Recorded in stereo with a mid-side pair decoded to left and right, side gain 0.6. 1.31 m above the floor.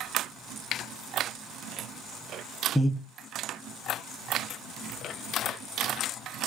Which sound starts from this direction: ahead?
Breathing, at 2.8 s.